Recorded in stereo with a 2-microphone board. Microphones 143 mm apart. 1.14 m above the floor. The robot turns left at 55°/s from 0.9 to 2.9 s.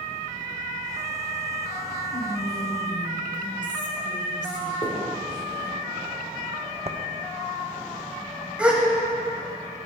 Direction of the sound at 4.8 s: 45° left (ahead or behind).